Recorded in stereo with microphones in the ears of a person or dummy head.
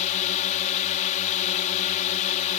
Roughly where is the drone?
Left.